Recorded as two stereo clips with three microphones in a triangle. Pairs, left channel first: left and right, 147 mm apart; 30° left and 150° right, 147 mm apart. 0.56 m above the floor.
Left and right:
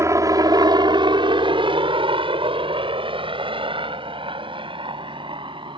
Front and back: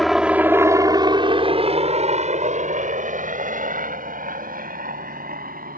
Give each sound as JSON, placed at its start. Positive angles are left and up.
{"t": 0.0, "sound": "a helicopter", "azimuth_deg": -60}